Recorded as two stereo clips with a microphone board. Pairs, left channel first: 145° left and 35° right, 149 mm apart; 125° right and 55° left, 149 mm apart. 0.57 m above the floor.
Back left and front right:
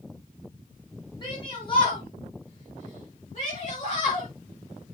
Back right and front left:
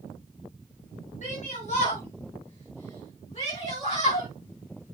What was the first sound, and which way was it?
A shout, 155° right.